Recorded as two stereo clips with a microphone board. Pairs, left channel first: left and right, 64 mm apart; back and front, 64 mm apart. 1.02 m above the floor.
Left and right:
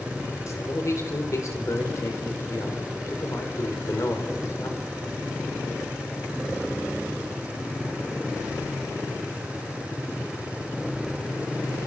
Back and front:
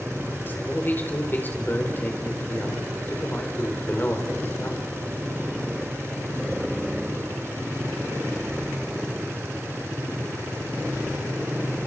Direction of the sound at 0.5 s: 125° left.